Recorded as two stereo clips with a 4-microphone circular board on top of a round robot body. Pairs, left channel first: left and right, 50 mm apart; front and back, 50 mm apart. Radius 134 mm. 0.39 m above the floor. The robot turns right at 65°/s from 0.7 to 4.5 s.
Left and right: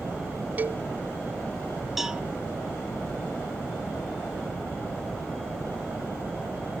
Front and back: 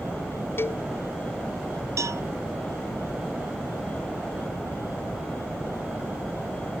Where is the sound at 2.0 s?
175° right; by 2.2 s 160° right.